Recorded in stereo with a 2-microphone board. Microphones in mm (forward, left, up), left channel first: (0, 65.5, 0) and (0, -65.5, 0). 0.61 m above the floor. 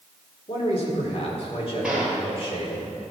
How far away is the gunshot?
About 2.5 m.